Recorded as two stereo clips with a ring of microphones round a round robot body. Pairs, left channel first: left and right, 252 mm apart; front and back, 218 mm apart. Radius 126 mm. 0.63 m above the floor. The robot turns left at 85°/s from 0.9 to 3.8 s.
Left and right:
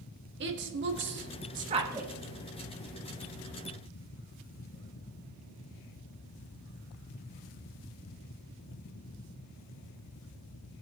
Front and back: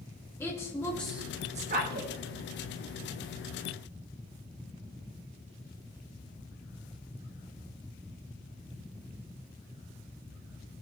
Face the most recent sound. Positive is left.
turn(degrees=40)